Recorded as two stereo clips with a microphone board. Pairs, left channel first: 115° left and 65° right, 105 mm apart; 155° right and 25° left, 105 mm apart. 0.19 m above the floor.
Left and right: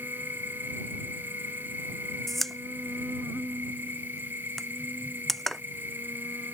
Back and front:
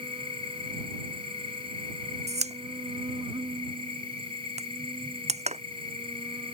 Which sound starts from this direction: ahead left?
A pop, at 2.3 s.